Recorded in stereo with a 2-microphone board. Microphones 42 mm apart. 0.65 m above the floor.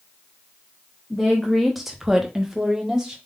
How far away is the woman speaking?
About 1.0 m.